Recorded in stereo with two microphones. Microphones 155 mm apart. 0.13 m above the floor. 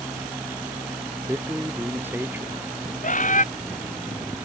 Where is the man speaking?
15° right (ahead or behind).